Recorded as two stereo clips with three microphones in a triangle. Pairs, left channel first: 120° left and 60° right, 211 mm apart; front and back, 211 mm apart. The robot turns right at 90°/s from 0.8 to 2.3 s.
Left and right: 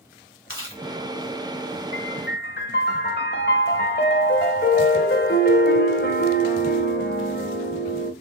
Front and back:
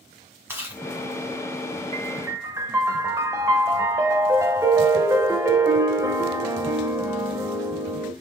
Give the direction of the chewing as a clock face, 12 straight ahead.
9 o'clock.